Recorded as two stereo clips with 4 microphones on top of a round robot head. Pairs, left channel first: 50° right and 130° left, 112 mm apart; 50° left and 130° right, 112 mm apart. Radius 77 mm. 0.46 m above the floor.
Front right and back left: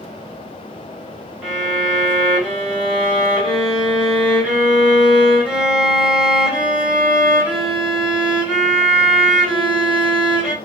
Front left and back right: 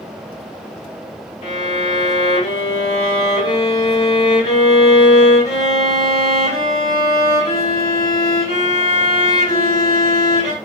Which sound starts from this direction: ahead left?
A violin, at 1.4 s.